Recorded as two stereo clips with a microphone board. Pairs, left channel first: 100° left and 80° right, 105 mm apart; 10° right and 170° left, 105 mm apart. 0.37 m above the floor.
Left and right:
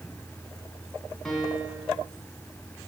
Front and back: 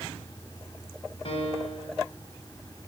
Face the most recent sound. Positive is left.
turn(degrees=15)